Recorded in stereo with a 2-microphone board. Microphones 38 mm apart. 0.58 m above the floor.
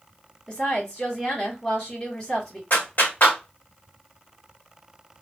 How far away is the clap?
About 1.3 m.